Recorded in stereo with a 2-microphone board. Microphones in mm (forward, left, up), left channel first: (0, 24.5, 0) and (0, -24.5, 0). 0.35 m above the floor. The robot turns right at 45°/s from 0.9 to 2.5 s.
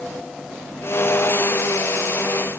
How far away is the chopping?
I don't hear chopping.